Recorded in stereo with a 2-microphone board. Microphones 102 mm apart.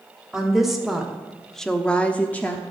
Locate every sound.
0.3 s a woman speaking: 5° right (ahead or behind), 2 m; by 2.6 s 15° left (ahead or behind), 1.0 m